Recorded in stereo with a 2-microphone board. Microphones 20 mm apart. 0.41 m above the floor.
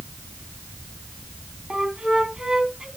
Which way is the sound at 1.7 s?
45° right (ahead or behind).